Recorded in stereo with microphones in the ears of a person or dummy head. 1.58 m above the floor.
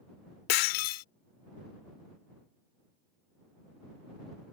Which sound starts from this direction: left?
Breaking glass, at 0.5 s.